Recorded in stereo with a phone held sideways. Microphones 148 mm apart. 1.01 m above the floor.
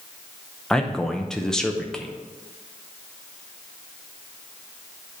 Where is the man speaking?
5° left (ahead or behind), 0.7 m.